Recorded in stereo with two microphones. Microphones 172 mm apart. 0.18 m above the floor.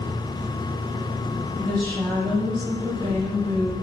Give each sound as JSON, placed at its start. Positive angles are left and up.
{"t": 0.0, "sound": "an engine running", "side_deg": -35, "distance_m": 3.5}
{"t": 1.6, "sound": "a woman speaking", "side_deg": -30, "distance_m": 6.5}